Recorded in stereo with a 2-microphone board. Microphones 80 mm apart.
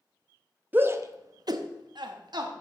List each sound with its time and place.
0.7 s a shout: 25° right (ahead or behind), 0.8 m; by 2.5 s 60° right (ahead or behind), 1.3 m